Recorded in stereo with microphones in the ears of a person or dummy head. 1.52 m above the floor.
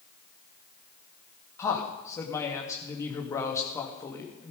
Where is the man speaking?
20° left (ahead or behind), 2 m.